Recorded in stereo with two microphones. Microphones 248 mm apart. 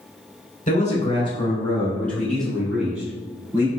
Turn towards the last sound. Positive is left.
turn(degrees=-10)  # may be behind; listen again after turning